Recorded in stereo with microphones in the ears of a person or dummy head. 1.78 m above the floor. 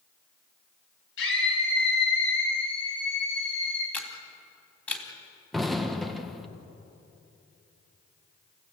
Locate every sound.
1.2 s a scream: 80° left, 9.5 m; by 3.8 s 75° left (ahead or behind), 11 m
3.9 s a camera shutter: 15° left (ahead or behind), 3.5 m
5.5 s an explosion: 5° left (ahead or behind), 1.6 m